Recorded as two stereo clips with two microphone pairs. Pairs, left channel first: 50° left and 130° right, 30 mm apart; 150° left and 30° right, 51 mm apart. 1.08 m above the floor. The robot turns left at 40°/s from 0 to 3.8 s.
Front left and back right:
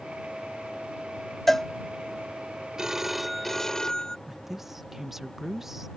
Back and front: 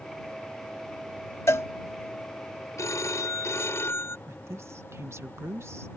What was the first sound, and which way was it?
A cowbell, 130° left.